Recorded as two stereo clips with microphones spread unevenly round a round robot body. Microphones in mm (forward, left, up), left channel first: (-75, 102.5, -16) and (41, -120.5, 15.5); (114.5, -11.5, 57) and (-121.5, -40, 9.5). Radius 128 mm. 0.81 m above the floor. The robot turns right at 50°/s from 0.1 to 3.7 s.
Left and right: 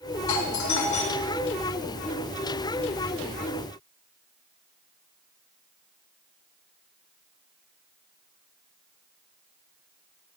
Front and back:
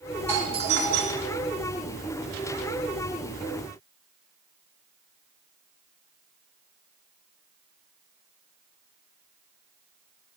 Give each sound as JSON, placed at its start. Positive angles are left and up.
{"t": 0.3, "sound": "a doorbell", "azimuth_deg": 110, "distance_m": 4.0}